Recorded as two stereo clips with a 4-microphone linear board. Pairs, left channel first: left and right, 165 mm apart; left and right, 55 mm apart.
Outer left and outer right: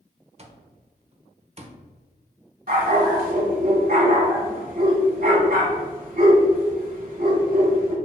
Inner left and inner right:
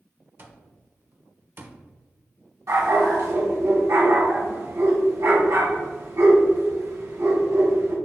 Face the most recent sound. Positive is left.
turn(degrees=-70)  # may be behind; listen again after turning